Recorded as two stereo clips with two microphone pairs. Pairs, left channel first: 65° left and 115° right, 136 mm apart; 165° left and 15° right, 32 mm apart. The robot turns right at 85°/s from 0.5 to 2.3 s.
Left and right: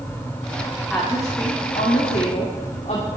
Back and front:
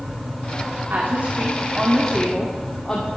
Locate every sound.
0.9 s a woman speaking: 25° right, 2 m; by 3.1 s 95° left, 2 m